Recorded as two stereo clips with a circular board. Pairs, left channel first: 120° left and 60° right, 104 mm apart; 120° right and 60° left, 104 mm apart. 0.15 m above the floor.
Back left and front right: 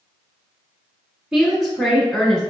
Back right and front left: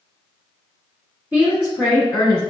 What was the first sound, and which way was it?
A woman speaking, 20° left.